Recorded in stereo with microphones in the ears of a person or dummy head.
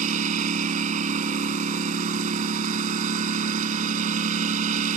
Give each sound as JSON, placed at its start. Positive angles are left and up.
{"t": 0.0, "sound": "a lawn mower", "side_deg": -40}